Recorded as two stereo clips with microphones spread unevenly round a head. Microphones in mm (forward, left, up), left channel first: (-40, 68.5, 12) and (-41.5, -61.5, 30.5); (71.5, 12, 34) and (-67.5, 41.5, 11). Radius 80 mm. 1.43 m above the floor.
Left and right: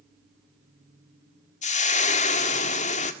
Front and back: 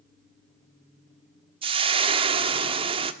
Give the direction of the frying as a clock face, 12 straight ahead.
8 o'clock.